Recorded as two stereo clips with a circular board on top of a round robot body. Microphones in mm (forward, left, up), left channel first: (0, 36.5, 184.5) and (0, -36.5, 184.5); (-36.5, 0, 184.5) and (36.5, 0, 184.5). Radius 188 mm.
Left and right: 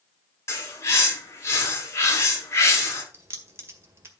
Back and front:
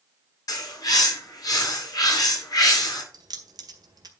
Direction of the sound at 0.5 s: 140° left.